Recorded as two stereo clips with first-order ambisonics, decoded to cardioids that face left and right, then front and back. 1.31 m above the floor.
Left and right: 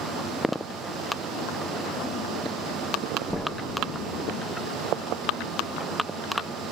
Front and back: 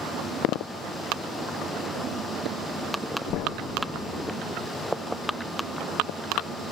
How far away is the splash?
About 2.5 m.